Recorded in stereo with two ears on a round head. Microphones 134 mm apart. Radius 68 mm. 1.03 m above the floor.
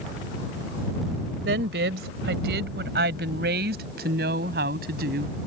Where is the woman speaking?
85° right; by 5.4 s 70° right (ahead or behind).